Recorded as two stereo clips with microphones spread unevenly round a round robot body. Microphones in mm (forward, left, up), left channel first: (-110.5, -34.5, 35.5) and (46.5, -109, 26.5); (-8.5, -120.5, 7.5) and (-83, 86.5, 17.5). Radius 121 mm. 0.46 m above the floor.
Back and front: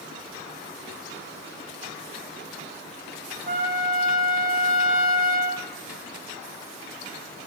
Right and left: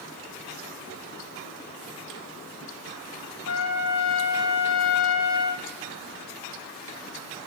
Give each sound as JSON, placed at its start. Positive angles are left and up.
{"t": 3.5, "sound": "a trumpet", "azimuth_deg": -60, "distance_m": 3.0}